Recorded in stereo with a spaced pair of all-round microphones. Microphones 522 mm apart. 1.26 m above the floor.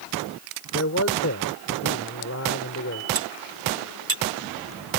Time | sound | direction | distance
0.7 | a man speaking | 30° left (ahead or behind) | ?
3.1 | cutlery clinking | 85° right | ?